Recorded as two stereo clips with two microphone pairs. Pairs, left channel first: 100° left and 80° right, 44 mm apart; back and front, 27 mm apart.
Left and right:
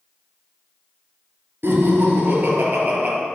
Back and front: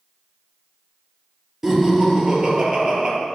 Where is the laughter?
70° right, 3 m; by 3.1 s 40° right, 3 m.